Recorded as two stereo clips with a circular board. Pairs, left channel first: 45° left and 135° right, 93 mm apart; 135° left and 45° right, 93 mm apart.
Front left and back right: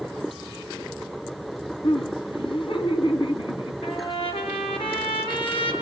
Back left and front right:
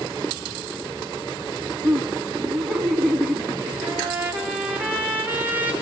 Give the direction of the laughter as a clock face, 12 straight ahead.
11 o'clock.